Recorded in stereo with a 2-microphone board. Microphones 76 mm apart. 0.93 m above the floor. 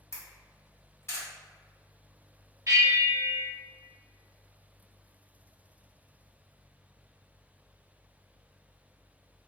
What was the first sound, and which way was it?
A camera shutter, 40° left (ahead or behind).